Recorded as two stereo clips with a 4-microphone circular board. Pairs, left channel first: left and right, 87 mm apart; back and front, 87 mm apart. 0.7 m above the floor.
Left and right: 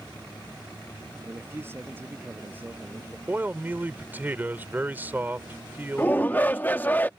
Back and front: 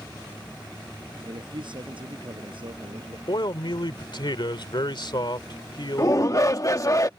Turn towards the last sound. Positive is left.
turn(degrees=150)